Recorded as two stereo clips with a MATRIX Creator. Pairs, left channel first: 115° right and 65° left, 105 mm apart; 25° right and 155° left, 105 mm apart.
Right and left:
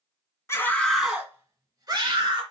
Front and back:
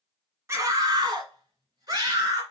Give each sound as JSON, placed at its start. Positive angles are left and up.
{"t": 0.5, "sound": "a scream", "azimuth_deg": -155, "distance_m": 1.4}